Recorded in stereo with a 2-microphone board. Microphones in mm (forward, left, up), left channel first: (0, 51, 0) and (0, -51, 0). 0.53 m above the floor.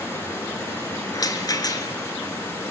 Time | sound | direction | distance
0.0 | running water | 25° left (ahead or behind) | 7 m
1.1 | a rattle | 35° left (ahead or behind) | 1.3 m